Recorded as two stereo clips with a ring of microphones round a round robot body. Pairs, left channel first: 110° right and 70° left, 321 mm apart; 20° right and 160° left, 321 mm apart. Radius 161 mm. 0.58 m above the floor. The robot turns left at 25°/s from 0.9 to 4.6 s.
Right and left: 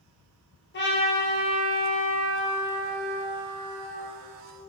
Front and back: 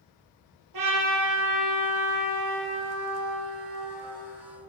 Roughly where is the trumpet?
Behind.